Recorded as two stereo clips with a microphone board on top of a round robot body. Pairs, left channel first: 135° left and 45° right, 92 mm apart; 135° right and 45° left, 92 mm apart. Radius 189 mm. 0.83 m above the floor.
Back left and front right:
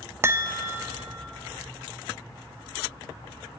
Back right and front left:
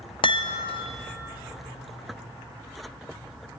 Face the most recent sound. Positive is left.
turn(degrees=-105)